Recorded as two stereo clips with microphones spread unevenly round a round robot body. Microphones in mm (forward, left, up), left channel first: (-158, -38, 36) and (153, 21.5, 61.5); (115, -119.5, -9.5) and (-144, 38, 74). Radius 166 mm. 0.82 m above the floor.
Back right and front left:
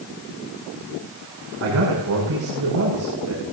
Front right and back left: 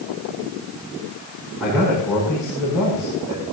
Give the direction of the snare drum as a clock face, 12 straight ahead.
No snare drum in this recording.